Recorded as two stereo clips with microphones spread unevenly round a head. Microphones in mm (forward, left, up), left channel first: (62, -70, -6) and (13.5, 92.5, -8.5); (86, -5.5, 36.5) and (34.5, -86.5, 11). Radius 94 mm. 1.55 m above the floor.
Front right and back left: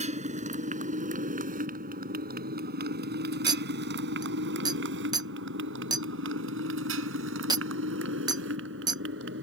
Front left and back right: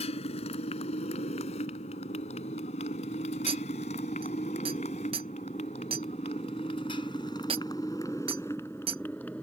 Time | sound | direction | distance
0.0 | a motorcycle | 55° left | ?
3.5 | a clink | 175° left | ?